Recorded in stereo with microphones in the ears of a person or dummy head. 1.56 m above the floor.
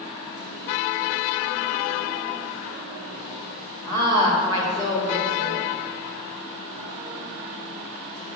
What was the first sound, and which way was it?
A woman speaking, 20° left (ahead or behind).